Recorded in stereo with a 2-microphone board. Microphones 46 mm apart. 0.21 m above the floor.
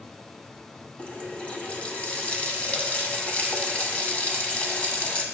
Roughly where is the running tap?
Left.